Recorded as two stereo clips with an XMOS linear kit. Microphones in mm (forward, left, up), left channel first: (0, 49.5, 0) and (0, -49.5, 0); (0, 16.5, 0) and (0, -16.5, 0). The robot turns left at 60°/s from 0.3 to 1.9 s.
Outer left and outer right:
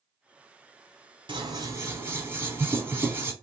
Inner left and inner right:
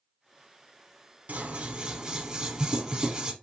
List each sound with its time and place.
1.3 s scissors: 115° right, 0.5 m; by 3.3 s 150° right, 0.5 m